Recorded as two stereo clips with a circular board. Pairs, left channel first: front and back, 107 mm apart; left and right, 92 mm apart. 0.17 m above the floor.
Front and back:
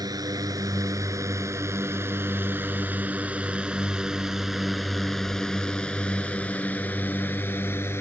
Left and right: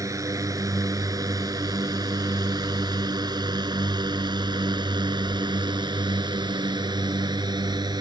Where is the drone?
135° right; by 8.0 s 65° right.